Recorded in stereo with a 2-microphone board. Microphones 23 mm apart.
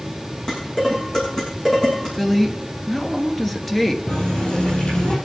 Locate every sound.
0.5 s dishes clattering: 35° left (ahead or behind), 6.5 m
2.2 s a woman speaking: 15° left (ahead or behind), 1.5 m
4.1 s a running tap: 55° left (ahead or behind), 4.5 m